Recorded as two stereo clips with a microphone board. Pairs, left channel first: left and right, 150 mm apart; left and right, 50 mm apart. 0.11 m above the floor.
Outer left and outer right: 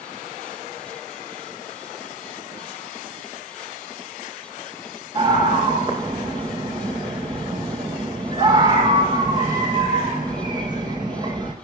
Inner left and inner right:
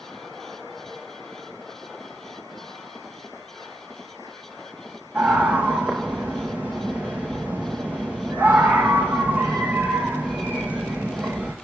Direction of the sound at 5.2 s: 35° right (ahead or behind).